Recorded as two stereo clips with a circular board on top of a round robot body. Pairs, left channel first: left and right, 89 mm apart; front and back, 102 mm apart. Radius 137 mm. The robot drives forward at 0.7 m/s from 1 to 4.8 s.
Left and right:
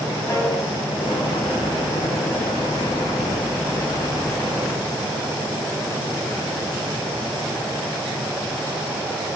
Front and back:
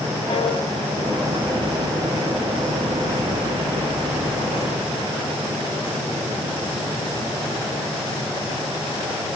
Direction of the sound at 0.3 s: 30° left.